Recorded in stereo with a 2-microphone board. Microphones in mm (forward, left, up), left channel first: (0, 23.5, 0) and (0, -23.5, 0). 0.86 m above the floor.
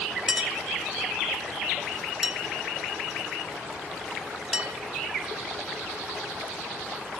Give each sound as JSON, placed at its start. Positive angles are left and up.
{"t": 0.3, "sound": "a clink", "side_deg": -10, "distance_m": 1.8}